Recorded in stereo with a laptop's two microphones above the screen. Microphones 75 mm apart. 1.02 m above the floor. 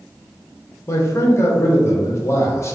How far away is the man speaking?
About 0.6 m.